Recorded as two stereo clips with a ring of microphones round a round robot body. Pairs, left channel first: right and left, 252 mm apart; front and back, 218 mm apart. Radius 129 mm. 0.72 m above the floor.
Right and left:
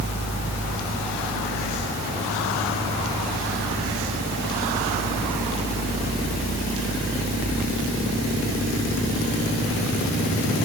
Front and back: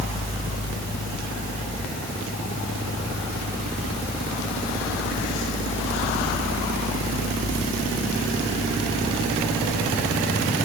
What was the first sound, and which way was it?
Only background noise.